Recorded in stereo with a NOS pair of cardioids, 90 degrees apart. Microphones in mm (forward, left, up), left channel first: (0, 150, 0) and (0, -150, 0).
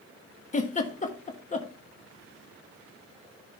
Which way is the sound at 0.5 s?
25° left.